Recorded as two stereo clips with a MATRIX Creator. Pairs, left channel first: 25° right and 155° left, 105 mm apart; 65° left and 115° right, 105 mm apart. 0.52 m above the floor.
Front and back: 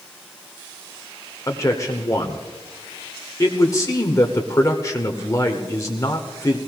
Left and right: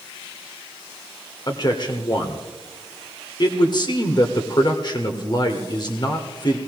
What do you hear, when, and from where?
1.5 s a man speaking: 30° left, 1.4 m